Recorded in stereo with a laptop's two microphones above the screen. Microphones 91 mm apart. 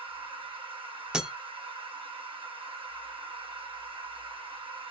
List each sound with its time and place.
0.0 s a machine running: 65° right (ahead or behind), 1.2 m
1.1 s breaking glass: 10° right (ahead or behind), 0.8 m